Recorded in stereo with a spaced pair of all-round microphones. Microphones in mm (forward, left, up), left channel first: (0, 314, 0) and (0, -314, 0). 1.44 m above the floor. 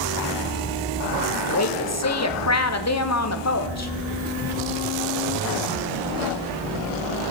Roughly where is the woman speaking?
Left.